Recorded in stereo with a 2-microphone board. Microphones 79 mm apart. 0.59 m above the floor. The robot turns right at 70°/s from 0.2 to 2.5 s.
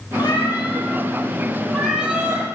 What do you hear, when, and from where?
0.2 s a cat meowing: 60° left, 7 m; by 2.5 s 140° right, 7 m